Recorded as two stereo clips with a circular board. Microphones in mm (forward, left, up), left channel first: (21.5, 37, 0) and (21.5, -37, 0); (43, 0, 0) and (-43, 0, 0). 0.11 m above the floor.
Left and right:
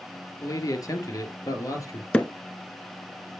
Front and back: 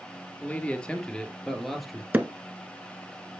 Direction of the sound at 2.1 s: 140° left.